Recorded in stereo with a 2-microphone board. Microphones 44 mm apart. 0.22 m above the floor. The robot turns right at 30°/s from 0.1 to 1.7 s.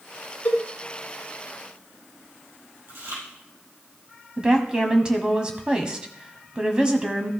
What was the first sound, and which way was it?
A cowbell, 35° left (ahead or behind).